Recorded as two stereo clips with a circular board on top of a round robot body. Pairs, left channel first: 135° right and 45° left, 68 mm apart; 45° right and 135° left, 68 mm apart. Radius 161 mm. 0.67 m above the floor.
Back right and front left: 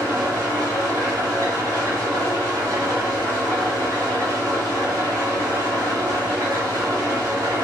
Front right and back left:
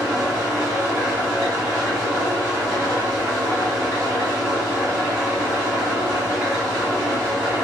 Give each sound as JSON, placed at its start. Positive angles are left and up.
{"t": 0.0, "sound": "an engine running", "azimuth_deg": 80, "distance_m": 1.8}